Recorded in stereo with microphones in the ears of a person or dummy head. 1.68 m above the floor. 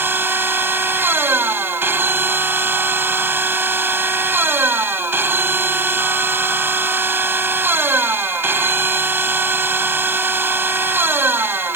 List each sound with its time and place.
0.0 s a machine running: 10° right (ahead or behind)